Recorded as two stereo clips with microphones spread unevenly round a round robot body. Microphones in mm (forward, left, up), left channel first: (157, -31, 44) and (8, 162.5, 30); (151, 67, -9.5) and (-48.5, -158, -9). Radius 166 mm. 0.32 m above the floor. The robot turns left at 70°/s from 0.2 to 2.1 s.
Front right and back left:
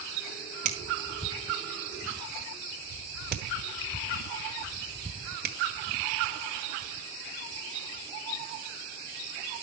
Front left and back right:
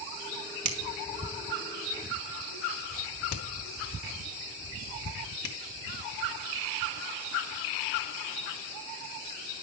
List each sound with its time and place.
0.7 s a finger snap: 175° right, 2.5 m; by 5.5 s 85° left, 2.5 m